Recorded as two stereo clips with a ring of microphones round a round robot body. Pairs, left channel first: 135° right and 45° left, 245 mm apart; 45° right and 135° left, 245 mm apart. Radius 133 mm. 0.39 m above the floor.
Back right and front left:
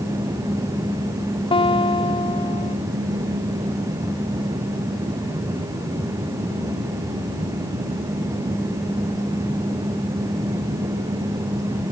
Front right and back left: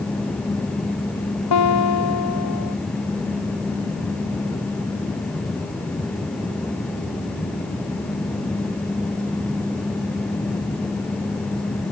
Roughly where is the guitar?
Ahead right.